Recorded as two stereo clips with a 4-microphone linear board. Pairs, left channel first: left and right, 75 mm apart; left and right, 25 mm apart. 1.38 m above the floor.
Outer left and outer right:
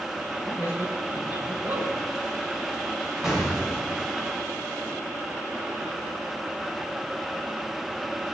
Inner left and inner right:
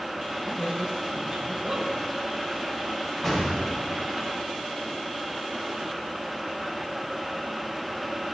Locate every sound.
0.4 s a man speaking: 30° right (ahead or behind), 5.5 m
3.2 s an explosion: 5° right (ahead or behind), 6 m